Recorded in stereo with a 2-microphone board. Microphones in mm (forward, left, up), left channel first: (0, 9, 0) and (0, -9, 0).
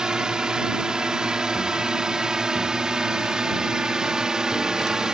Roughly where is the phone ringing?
I don't hear a phone ringing.